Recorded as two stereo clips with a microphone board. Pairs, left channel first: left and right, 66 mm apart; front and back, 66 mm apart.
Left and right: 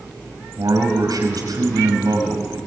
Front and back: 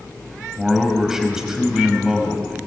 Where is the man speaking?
95° right, 5 m.